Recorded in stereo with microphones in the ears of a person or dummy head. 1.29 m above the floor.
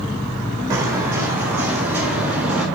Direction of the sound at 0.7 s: 15° right (ahead or behind).